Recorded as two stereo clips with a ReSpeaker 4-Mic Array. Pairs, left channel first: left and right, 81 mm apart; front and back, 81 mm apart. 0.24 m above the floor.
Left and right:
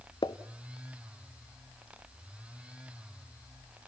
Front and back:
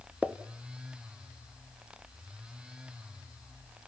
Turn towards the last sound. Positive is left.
turn(degrees=110)